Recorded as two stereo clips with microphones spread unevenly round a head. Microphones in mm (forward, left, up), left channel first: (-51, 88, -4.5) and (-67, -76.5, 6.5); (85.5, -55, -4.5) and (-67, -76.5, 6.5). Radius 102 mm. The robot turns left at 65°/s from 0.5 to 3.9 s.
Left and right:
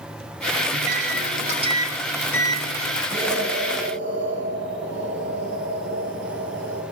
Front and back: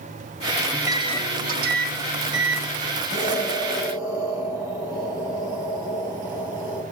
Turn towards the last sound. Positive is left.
turn(degrees=-105)